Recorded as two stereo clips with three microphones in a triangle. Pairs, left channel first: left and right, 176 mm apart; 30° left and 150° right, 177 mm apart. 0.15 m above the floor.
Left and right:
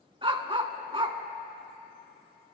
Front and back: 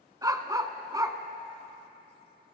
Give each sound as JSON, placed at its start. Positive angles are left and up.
{"t": 0.2, "sound": "a dog barking", "azimuth_deg": -100, "distance_m": 0.6}